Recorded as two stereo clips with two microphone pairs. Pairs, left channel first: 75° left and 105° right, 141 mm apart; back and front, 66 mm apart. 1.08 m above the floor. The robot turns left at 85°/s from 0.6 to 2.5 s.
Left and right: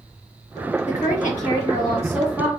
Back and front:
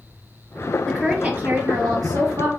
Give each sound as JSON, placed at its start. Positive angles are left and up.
{"t": 0.9, "sound": "a woman speaking", "azimuth_deg": 110, "distance_m": 1.3}